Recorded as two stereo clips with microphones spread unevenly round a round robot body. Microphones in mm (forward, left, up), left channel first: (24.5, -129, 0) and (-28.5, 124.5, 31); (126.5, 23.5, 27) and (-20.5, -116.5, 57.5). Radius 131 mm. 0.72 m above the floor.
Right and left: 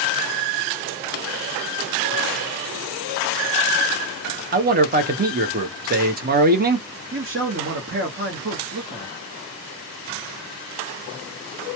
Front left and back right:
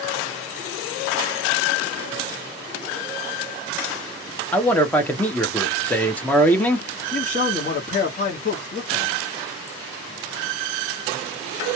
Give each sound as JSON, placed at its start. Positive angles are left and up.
{"t": 4.5, "sound": "a man speaking", "azimuth_deg": 95, "distance_m": 0.7}
{"t": 7.1, "sound": "a man speaking", "azimuth_deg": 65, "distance_m": 1.0}